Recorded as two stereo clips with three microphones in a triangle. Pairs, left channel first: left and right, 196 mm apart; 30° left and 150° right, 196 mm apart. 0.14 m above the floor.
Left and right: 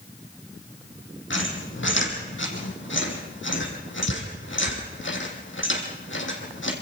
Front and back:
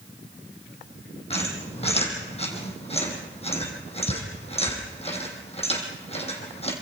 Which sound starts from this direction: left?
A squeak, at 1.3 s.